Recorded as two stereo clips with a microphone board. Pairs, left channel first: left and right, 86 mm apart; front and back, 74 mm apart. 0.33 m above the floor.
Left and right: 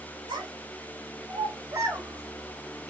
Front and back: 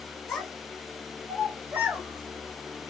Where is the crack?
No crack in this recording.